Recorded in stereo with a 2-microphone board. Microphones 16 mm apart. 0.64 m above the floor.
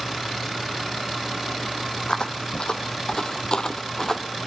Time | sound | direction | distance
2.1 | footsteps | 70° left (ahead or behind) | 1.7 m